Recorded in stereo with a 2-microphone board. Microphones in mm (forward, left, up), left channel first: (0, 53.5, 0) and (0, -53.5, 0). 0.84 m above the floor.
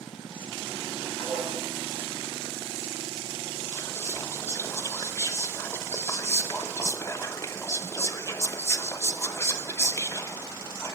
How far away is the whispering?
About 0.5 m.